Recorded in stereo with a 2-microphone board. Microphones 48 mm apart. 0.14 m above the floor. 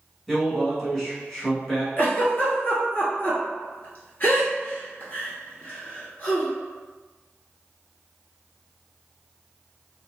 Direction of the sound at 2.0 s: 40° left (ahead or behind).